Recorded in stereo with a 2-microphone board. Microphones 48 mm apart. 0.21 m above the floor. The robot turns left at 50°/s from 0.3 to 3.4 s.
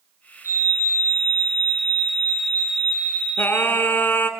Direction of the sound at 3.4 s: 45° left (ahead or behind).